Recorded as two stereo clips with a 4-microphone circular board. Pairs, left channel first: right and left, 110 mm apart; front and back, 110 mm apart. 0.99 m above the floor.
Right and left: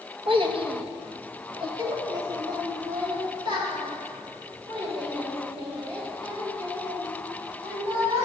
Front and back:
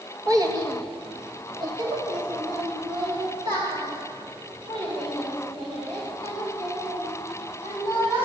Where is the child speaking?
125° left, 0.7 m; by 8.2 s 140° left, 5 m.